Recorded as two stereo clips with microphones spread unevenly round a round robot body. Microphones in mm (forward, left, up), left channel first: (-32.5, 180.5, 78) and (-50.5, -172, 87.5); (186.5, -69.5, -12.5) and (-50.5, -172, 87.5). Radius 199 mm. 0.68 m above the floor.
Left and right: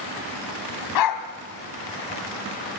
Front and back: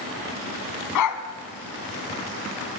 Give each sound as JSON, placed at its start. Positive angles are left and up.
{"t": 0.9, "sound": "a dog barking", "azimuth_deg": 50, "distance_m": 2.0}